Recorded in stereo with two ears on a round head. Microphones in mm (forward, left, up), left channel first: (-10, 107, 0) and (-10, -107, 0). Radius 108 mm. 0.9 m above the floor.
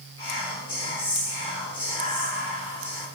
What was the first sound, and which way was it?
Whispering, 25° left (ahead or behind).